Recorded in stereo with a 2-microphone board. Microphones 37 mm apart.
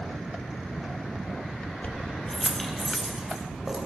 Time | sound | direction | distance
1.8 | keys jangling | 50° left (ahead or behind) | 1.0 m